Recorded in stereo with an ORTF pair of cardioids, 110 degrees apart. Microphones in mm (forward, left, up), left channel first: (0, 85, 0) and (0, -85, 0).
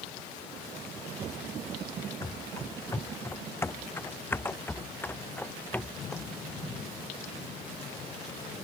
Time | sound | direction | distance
2.2 | running footsteps | 20° left | ?